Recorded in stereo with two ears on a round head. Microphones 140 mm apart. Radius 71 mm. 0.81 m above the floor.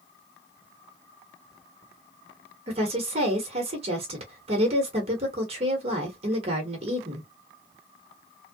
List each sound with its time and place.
2.7 s a woman speaking: 40° right (ahead or behind), 1.0 m